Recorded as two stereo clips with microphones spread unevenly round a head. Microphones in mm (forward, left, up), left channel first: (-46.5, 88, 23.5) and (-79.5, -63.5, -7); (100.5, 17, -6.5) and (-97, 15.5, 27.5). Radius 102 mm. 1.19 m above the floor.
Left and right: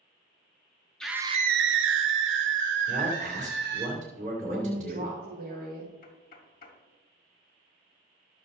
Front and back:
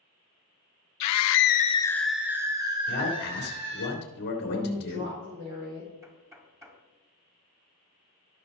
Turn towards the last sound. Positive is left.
turn(degrees=105)